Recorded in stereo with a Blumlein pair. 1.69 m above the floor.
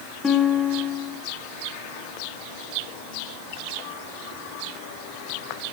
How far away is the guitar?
About 0.6 m.